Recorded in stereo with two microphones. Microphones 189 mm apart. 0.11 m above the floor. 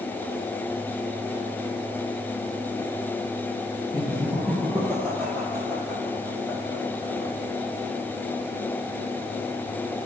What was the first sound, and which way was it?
Laughter, 15° right (ahead or behind).